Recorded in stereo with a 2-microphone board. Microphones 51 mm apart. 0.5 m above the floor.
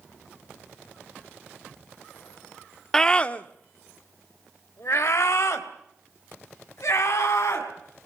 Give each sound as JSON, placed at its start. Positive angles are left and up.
{"t": 2.9, "sound": "a scream", "side_deg": 10, "distance_m": 0.9}